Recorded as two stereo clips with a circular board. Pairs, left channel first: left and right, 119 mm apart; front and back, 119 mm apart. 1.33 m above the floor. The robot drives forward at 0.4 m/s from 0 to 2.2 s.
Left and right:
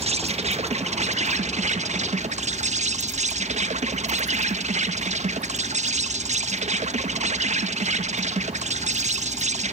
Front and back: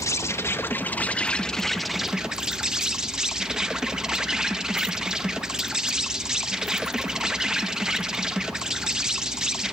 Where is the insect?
60° right, 1.6 m; by 9.7 s 95° right, 1.4 m.